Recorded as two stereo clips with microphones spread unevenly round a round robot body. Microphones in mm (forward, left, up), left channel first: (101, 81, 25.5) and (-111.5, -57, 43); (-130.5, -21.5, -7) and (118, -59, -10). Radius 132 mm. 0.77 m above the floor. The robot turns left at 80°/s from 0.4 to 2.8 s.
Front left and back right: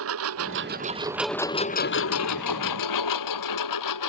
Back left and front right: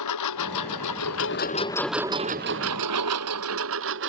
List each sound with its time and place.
0.0 s a lawn mower: 175° left; by 4.1 s 40° left